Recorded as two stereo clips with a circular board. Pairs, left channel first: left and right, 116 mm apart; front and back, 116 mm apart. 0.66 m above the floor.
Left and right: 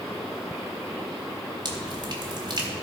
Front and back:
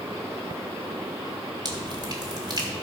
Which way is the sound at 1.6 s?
135° right.